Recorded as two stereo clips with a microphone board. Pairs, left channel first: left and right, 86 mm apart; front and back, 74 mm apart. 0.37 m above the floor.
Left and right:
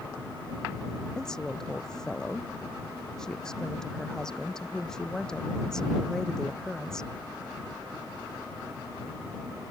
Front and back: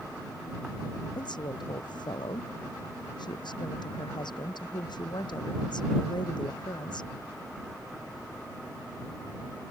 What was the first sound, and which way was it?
A woman speaking, 5° left.